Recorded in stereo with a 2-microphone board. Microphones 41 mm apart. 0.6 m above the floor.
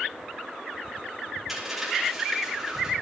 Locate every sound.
1.5 s a dropped coin: 5° right (ahead or behind), 5 m